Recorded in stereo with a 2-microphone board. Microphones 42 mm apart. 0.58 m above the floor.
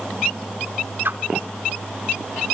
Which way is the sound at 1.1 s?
55° right (ahead or behind).